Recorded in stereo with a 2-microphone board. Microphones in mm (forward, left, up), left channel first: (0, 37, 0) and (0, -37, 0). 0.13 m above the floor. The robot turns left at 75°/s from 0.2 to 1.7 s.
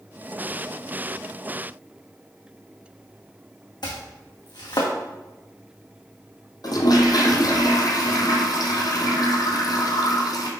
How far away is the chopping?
About 2 m.